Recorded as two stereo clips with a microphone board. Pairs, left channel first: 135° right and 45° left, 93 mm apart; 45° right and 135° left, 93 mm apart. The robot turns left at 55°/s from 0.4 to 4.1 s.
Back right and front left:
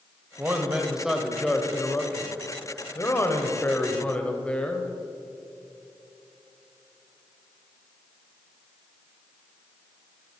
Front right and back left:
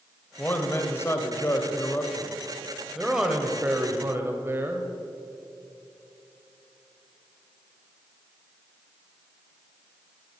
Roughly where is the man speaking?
Ahead.